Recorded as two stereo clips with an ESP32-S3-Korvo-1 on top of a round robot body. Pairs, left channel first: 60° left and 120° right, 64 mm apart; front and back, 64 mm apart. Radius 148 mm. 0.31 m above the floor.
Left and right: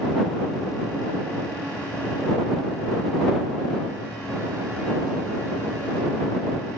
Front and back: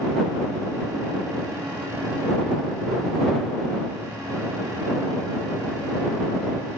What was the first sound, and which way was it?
Only background noise.